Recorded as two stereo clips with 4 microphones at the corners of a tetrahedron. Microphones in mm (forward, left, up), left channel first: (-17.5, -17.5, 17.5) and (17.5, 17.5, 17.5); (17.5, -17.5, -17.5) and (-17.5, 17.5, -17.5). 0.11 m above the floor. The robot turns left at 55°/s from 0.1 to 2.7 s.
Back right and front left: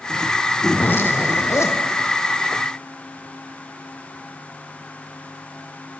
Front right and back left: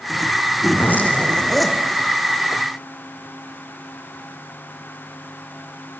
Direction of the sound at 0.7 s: 85° right.